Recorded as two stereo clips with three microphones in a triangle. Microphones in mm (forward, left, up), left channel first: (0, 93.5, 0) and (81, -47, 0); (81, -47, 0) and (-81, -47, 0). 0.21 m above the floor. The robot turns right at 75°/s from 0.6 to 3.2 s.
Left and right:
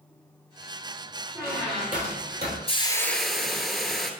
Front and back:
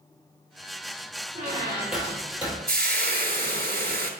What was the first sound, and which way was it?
A squeak, 135° right.